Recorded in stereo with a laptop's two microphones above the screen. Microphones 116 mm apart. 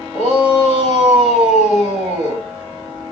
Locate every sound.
0.1 s a shout: 65° left (ahead or behind), 7 m